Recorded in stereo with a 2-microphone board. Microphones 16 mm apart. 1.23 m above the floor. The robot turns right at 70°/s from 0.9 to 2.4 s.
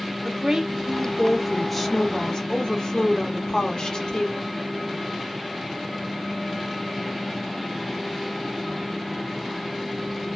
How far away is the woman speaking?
About 0.9 m.